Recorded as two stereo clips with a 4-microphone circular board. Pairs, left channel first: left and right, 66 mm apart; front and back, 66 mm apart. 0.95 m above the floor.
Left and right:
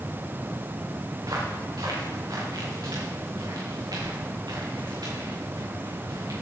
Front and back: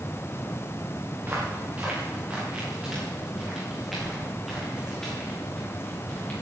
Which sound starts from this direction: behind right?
Footsteps, at 1.2 s.